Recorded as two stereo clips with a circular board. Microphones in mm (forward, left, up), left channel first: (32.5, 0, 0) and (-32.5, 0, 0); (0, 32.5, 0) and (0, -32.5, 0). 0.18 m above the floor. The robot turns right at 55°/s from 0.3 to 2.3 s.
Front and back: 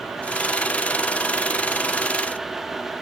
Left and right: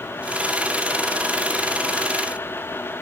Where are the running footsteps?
I don't hear running footsteps.